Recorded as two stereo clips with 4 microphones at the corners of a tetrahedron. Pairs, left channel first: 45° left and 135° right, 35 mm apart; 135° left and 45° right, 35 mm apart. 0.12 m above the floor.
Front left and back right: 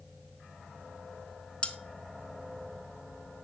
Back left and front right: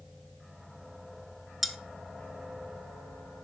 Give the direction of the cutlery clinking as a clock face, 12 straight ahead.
11 o'clock.